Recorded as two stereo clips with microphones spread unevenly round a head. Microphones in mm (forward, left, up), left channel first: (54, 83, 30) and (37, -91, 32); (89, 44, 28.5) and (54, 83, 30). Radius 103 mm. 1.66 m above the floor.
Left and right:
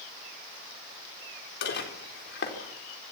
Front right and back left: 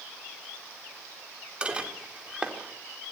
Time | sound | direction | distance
1.6 | dishes clattering | 60° left | 4 m